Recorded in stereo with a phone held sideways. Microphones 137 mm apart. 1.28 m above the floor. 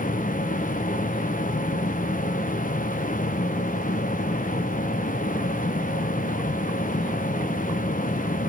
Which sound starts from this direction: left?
A machine running, at 0.0 s.